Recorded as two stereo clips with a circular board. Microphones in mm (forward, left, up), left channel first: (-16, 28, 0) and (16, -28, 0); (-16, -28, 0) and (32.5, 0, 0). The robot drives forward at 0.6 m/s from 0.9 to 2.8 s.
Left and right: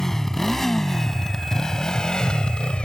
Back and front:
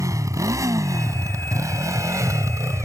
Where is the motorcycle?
35° left; by 2.9 s 45° left.